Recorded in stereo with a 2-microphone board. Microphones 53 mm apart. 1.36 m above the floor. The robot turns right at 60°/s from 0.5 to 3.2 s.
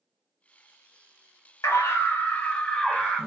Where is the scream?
110° left, 1.2 m; by 3.3 s 155° right, 1.2 m.